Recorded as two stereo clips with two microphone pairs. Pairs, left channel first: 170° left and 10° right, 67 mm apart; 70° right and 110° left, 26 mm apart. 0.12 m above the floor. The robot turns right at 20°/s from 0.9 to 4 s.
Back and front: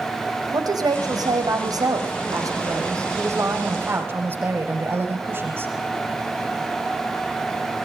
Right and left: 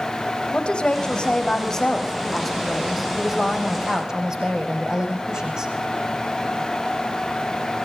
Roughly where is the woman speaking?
Ahead.